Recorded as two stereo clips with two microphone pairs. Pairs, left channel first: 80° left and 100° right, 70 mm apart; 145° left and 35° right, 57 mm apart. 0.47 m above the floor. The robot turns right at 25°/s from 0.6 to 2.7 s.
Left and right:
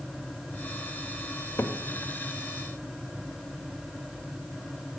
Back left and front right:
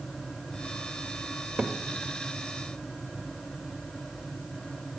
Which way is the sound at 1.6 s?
25° left.